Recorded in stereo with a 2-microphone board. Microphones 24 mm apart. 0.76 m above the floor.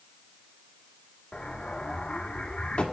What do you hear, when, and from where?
1.3 s an explosion: 55° left (ahead or behind), 1.5 m